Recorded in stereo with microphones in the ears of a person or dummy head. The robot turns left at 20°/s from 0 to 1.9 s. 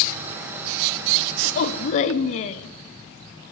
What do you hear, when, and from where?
1.4 s a woman speaking: 40° left (ahead or behind), 0.7 m